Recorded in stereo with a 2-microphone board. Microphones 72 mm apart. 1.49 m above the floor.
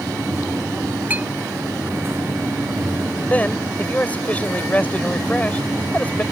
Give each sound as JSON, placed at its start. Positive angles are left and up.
{"t": 1.1, "sound": "a clink", "side_deg": -25}
{"t": 3.3, "sound": "a man speaking", "side_deg": 20}